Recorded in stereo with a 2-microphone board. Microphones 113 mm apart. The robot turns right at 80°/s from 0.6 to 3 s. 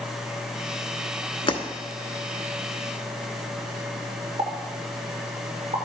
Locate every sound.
1.5 s breaking glass: 50° left (ahead or behind), 0.9 m; by 1.6 s 40° left (ahead or behind), 0.9 m
4.4 s a pop: 50° right (ahead or behind), 1.9 m